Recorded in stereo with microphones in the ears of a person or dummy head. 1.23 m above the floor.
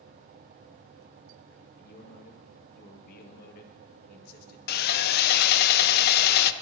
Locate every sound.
1.8 s a man speaking: 55° left (ahead or behind), 1.5 m
4.7 s sawing: 55° left (ahead or behind), 0.5 m